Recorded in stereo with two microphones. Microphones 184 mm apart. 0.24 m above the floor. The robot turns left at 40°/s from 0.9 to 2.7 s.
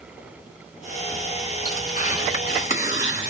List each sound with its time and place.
1.6 s tearing paper: 110° left, 1.9 m; by 3.3 s 70° left, 1.9 m